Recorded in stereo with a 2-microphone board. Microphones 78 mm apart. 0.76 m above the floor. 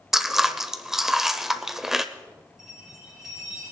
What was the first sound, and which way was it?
Chewing, 5° right (ahead or behind).